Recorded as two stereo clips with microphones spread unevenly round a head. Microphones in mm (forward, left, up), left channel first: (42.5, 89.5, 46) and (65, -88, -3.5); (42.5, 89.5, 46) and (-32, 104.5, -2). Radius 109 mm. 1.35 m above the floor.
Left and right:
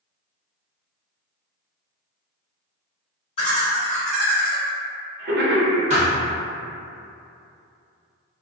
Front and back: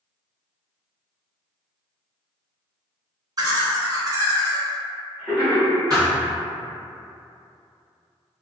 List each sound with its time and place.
3.4 s laughter: 165° left, 1.0 m; by 5.8 s 95° right, 1.0 m
5.9 s a thud: 105° right, 0.7 m